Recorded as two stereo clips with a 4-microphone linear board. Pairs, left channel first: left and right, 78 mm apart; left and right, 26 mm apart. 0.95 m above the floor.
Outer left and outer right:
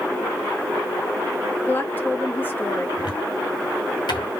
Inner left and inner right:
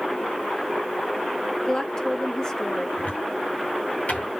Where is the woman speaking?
25° left (ahead or behind), 1.3 m.